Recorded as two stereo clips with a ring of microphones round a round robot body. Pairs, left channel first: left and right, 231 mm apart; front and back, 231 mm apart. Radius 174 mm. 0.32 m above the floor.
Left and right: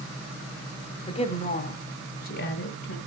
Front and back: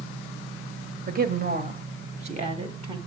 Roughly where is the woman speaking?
Behind left.